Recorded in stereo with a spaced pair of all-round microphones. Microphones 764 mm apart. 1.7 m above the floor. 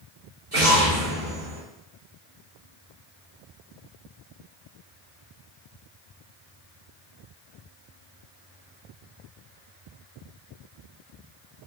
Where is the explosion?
50° right (ahead or behind), 1.8 m.